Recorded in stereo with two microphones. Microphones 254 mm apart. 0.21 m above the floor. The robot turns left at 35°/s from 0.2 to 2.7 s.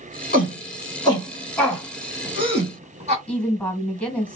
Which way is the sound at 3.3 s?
5° left (ahead or behind).